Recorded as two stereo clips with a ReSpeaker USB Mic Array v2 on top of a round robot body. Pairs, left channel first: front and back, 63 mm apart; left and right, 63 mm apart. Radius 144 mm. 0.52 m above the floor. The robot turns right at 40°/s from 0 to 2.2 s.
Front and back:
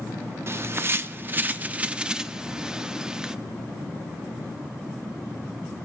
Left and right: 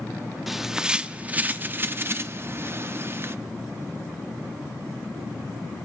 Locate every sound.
0.5 s a bird: 175° right, 0.7 m; by 3.4 s 105° right, 0.7 m